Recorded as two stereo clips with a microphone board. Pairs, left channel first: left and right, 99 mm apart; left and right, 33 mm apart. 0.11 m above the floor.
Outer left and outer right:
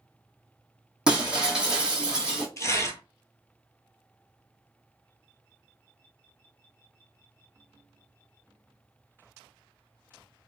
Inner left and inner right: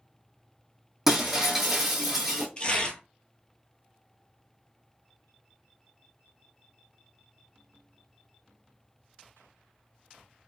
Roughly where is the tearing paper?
Left.